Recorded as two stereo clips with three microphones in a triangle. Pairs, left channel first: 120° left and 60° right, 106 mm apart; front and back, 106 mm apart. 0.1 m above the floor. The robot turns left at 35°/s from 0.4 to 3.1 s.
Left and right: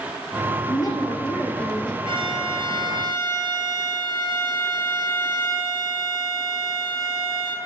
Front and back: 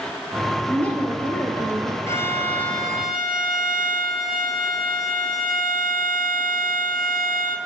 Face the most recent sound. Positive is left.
turn(degrees=-90)